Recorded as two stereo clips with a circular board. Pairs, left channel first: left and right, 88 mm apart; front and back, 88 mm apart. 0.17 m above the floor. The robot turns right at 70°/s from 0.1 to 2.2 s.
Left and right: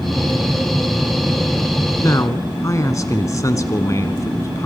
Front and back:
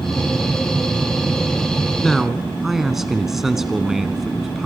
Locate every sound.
2.0 s a man speaking: 80° left, 1.5 m; by 4.7 s 95° left, 1.5 m